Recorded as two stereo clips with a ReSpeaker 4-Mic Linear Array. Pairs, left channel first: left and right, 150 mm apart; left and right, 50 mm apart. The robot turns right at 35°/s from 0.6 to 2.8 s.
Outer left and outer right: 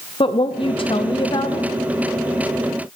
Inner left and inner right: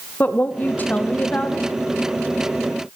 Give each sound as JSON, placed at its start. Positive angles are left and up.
{"t": 0.2, "sound": "a woman speaking", "azimuth_deg": 90, "distance_m": 0.6}